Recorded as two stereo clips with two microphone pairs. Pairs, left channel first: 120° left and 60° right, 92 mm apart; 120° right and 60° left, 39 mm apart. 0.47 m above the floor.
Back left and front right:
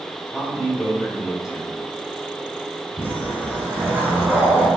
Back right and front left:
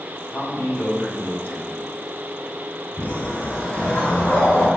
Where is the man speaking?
140° right, 3.5 m.